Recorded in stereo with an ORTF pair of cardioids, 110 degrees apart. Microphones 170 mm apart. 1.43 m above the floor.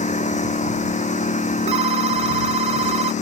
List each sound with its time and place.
0.0 s a lawn mower: 45° left
1.7 s a phone ringing: 40° right